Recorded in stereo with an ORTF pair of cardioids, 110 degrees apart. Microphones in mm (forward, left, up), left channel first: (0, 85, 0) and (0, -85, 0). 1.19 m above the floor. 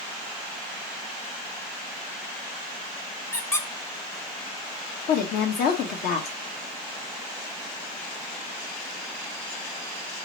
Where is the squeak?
15° left, 0.8 m.